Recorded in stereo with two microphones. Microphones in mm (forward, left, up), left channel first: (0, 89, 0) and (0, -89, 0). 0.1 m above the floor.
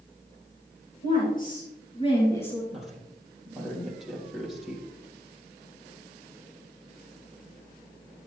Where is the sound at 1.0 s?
55° left (ahead or behind), 2.5 m; by 2.6 s 5° left (ahead or behind), 1.5 m.